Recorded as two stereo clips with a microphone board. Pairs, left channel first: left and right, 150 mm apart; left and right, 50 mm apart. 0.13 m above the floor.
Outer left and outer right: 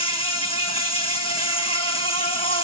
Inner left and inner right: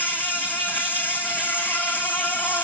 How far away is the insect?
About 1.5 m.